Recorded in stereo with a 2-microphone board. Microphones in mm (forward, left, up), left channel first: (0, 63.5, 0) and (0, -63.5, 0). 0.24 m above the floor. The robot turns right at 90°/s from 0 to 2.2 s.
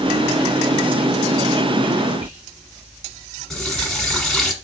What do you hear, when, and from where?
2.2 s whispering: 25° right (ahead or behind), 3 m; by 2.4 s 20° right (ahead or behind), 3 m
3.5 s a running tap: 5° left (ahead or behind), 1.3 m